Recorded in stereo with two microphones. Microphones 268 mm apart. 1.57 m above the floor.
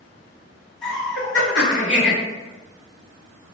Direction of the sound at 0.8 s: 5° left (ahead or behind).